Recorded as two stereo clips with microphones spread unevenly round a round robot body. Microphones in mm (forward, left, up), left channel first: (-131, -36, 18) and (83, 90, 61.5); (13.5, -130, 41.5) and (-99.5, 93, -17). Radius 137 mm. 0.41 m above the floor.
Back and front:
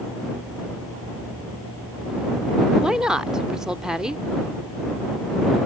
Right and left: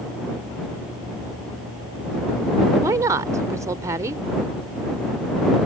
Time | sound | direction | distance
2.8 | a woman speaking | 135° left | ?